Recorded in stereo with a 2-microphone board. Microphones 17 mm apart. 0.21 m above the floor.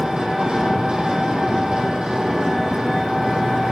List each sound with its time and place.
0.0 s an engine running: 80° right, 2 m